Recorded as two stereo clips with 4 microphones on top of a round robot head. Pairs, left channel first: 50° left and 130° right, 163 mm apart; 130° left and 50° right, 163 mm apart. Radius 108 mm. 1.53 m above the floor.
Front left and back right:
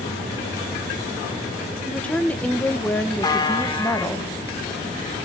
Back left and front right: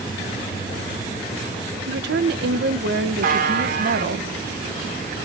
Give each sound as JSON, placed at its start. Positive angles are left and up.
{"t": 1.9, "sound": "a woman speaking", "azimuth_deg": -30, "distance_m": 1.1}
{"t": 3.2, "sound": "a buzzer", "azimuth_deg": -15, "distance_m": 2.5}